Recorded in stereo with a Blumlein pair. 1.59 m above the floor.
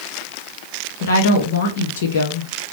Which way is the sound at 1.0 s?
60° left.